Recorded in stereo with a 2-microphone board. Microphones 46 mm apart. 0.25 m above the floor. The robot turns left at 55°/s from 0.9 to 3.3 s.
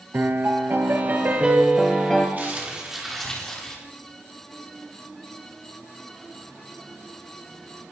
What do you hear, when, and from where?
0.1 s a piano: 125° right, 3.5 m; by 2.3 s 160° left, 3.5 m
2.4 s crumpling: 140° right, 9.5 m; by 3.8 s 165° left, 9.5 m